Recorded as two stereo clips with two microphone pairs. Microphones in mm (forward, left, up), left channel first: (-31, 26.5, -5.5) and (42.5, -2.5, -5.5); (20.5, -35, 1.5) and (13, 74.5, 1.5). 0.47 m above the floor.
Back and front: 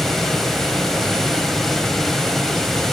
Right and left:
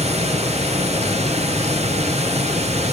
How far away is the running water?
About 0.8 m.